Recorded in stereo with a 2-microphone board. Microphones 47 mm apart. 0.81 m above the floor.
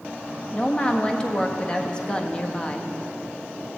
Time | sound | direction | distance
0.5 | a woman speaking | 20° left (ahead or behind) | 1.2 m